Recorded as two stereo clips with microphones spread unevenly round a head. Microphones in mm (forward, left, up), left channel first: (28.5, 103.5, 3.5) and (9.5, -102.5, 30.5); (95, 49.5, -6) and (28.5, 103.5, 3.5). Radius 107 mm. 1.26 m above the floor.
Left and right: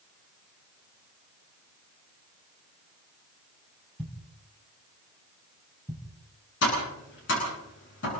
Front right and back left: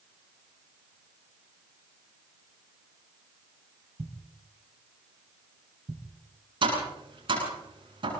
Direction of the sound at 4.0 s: 170° left.